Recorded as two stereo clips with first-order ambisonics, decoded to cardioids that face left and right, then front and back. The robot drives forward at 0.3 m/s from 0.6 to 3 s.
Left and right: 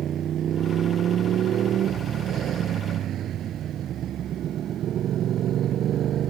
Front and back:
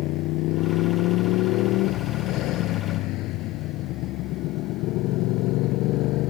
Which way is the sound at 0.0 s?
30° right.